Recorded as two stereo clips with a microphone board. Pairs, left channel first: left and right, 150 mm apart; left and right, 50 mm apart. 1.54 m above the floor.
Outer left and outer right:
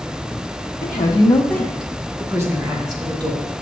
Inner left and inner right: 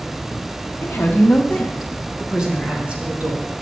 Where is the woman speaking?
50° left (ahead or behind), 1.1 m; by 3.6 s 35° right (ahead or behind), 3 m.